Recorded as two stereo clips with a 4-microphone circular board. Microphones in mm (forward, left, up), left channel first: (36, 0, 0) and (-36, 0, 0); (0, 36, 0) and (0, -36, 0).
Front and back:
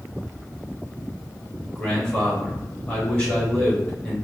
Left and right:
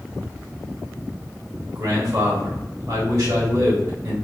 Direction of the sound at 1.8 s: 75° right.